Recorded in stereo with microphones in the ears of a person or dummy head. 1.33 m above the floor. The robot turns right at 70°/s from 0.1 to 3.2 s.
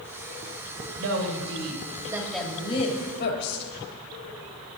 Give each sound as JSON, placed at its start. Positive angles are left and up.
{"t": 1.0, "sound": "a woman speaking", "azimuth_deg": -100, "distance_m": 3.0}